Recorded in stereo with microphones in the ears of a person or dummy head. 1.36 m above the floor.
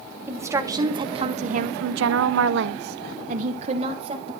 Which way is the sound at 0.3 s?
15° right (ahead or behind).